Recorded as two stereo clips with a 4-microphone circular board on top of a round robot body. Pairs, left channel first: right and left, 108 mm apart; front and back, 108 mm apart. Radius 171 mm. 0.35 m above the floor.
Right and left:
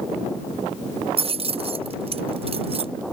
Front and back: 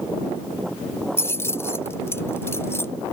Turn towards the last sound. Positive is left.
turn(degrees=65)